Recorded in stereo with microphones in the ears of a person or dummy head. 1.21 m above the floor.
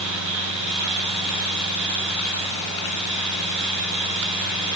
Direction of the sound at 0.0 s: 60° right (ahead or behind).